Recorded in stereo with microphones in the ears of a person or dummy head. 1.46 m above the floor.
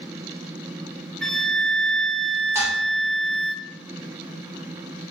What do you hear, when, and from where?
1.2 s a flute: 5° left (ahead or behind), 0.7 m
2.5 s dishes clattering: 15° right (ahead or behind), 4 m